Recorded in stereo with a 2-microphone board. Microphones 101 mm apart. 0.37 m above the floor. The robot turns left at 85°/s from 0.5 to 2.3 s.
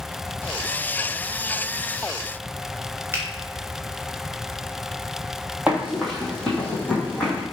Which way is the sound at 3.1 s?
25° right (ahead or behind).